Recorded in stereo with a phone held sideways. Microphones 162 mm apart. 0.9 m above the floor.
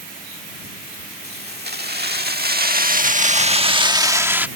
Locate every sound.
1.2 s keys jangling: 80° right; by 4.5 s 10° right (ahead or behind)